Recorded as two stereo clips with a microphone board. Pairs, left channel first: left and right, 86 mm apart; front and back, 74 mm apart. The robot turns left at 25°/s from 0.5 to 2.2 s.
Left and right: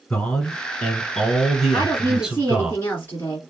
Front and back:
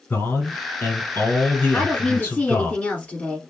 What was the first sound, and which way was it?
A man speaking, 25° left.